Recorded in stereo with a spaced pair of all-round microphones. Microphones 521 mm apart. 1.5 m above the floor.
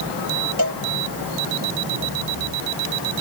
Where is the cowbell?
40° right (ahead or behind).